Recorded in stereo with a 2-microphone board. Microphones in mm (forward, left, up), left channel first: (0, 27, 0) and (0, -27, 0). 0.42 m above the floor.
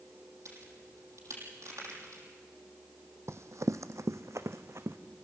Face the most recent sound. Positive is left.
turn(degrees=-55)  # may be behind; listen again after turning